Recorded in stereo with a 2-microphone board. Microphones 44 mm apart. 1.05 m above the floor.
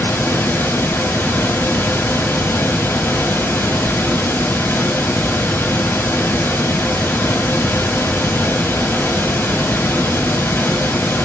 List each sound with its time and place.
0.0 s running water: 60° left (ahead or behind), 1.7 m